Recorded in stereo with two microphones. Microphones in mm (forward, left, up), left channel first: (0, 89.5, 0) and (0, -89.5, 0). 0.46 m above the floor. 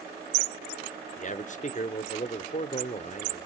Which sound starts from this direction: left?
A man speaking, at 1.2 s.